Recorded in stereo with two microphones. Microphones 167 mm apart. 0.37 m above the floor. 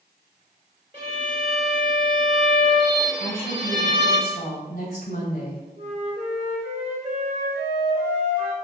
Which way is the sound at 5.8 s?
45° right (ahead or behind).